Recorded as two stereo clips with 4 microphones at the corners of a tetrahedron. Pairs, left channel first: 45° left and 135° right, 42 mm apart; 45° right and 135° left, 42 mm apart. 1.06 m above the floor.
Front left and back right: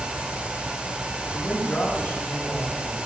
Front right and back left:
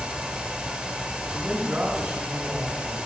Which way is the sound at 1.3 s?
75° left.